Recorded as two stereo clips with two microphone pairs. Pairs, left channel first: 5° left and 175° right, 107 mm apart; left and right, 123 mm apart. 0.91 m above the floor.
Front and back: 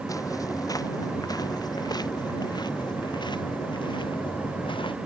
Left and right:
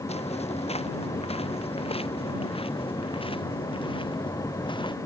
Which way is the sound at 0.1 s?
60° left.